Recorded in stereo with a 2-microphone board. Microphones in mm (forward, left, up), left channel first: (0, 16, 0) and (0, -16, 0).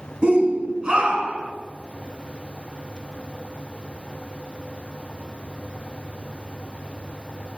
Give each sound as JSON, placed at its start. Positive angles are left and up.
{"t": 0.2, "sound": "a shout", "side_deg": -40, "distance_m": 3.0}